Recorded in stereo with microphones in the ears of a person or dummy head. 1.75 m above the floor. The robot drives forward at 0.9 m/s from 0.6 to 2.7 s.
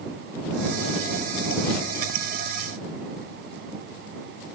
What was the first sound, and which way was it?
Only background noise.